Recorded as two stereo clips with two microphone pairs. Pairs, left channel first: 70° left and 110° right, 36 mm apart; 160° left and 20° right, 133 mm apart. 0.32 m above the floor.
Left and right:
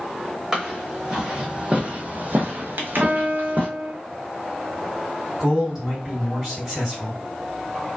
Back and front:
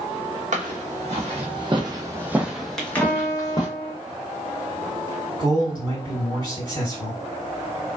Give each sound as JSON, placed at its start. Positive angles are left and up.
{"t": 0.5, "sound": "footsteps", "azimuth_deg": -40, "distance_m": 1.1}
{"t": 3.0, "sound": "a piano", "azimuth_deg": -110, "distance_m": 1.2}
{"t": 5.4, "sound": "a man speaking", "azimuth_deg": -45, "distance_m": 2.0}